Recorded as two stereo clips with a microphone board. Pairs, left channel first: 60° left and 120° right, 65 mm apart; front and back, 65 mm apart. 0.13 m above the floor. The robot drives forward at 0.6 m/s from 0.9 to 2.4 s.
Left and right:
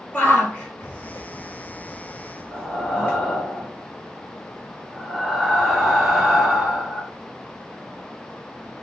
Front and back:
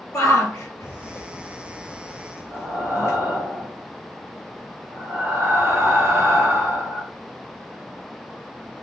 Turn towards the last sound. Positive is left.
turn(degrees=155)